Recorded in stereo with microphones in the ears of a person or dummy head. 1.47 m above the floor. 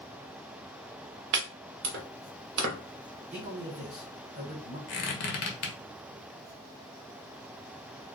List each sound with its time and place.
1.3 s chopping: 60° right (ahead or behind), 0.8 m
3.3 s a man speaking: 40° right (ahead or behind), 1.2 m
4.9 s a squeak: 50° left (ahead or behind), 0.7 m